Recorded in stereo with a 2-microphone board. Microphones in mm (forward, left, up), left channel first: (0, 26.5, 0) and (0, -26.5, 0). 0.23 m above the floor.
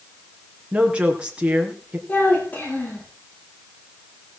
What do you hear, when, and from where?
0.7 s a woman speaking: 20° right (ahead or behind), 3.5 m
2.1 s a child speaking: 35° left (ahead or behind), 8.5 m